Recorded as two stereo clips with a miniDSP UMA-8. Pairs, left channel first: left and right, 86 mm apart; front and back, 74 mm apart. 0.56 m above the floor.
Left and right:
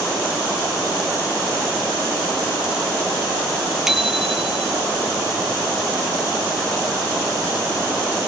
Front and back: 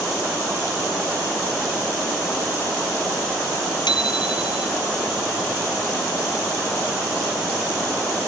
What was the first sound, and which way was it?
A bicycle bell, 5° right.